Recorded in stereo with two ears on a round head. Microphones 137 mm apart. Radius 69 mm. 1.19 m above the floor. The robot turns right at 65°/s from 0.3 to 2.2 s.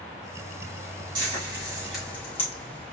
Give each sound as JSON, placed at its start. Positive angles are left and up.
{"t": 1.1, "sound": "frying", "side_deg": -50, "distance_m": 3.0}